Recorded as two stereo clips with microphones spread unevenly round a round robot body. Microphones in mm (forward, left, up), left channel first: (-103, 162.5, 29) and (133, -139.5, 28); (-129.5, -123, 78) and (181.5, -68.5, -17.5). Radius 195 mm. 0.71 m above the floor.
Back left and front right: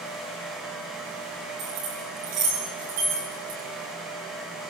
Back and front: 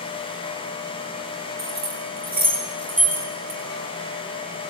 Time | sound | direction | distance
1.6 | keys jangling | 50° right | 7.5 m